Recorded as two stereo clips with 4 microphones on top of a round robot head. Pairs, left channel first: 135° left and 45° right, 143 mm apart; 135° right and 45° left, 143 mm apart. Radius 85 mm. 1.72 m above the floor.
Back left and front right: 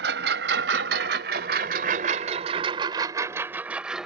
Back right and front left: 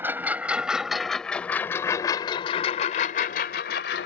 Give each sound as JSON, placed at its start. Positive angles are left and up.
{"t": 0.0, "sound": "a lawn mower", "azimuth_deg": -35}